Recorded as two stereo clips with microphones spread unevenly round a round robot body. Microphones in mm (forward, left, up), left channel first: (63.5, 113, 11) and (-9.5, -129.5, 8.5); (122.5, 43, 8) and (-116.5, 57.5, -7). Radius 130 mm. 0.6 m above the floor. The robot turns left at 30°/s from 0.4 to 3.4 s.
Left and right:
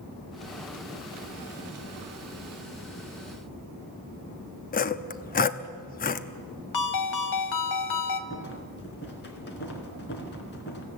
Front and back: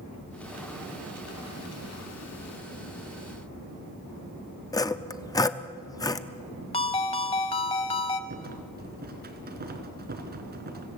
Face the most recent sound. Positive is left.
turn(degrees=125)